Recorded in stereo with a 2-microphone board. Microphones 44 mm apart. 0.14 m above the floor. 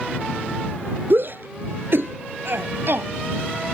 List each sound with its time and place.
1.1 s a shout: 50° right (ahead or behind); by 3.1 s 55° right (ahead or behind)